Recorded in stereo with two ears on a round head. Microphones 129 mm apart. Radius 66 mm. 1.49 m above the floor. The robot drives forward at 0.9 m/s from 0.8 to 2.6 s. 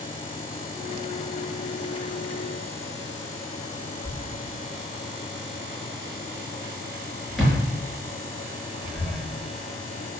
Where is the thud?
Centre (ahead or behind), 5.5 m.